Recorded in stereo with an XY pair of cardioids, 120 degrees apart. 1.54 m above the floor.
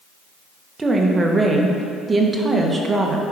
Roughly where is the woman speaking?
Ahead right.